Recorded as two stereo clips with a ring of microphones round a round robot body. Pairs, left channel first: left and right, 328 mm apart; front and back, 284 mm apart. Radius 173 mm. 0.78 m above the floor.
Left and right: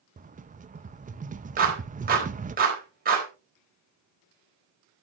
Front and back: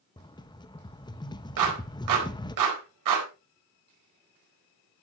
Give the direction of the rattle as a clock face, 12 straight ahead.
2 o'clock.